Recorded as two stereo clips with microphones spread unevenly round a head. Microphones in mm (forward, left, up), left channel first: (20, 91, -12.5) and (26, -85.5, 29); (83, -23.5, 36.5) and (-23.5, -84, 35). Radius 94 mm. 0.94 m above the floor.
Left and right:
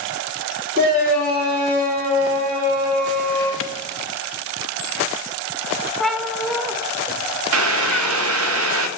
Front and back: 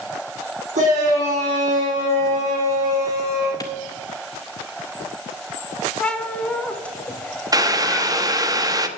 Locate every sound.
0.8 s a shout: 135° right, 3.5 m
3.6 s a clap: 100° left, 0.7 m
6.0 s a cat meowing: 35° right, 0.7 m
7.5 s boiling: 90° right, 1.1 m